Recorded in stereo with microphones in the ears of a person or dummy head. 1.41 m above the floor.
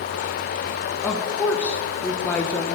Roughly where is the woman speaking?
Centre.